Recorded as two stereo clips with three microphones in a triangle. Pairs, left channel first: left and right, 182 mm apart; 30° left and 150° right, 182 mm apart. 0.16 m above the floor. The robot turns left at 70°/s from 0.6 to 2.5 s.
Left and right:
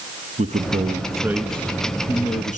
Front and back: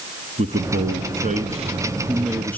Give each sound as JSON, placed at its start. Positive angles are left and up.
{"t": 0.4, "sound": "a man speaking", "azimuth_deg": -120, "distance_m": 1.9}